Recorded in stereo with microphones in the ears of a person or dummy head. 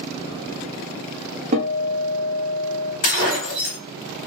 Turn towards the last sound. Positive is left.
turn(degrees=35)  # may be behind; listen again after turning